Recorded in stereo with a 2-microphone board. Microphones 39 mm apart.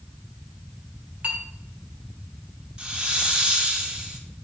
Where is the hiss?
25° right (ahead or behind), 0.9 m.